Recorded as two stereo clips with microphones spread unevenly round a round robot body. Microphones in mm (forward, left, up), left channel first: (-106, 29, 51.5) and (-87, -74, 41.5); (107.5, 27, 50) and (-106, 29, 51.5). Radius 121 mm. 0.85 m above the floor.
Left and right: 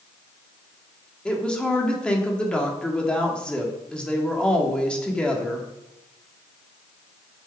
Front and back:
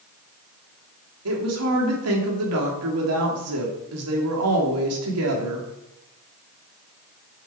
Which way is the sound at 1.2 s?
175° right.